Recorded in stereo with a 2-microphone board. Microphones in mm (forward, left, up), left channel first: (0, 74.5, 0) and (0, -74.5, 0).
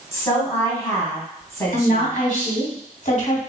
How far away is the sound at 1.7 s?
About 1.7 m.